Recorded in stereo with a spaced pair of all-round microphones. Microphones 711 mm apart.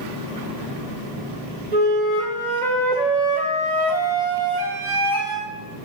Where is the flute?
70° right (ahead or behind), 1.0 m.